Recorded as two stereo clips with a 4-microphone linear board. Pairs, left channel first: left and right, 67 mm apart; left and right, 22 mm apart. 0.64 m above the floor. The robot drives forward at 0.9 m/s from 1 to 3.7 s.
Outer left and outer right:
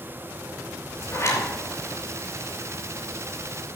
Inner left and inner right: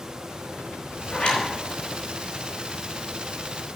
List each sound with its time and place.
1.1 s a zipper: 45° left (ahead or behind), 4 m